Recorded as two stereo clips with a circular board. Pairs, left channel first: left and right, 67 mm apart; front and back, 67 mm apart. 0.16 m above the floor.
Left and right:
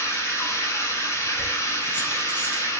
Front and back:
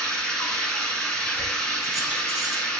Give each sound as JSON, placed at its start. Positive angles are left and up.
{"t": 0.0, "sound": "running water", "azimuth_deg": 75, "distance_m": 0.8}
{"t": 1.4, "sound": "keys jangling", "azimuth_deg": 105, "distance_m": 0.7}